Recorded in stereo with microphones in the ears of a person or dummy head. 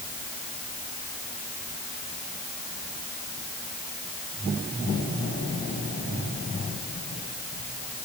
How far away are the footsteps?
No footsteps in this recording.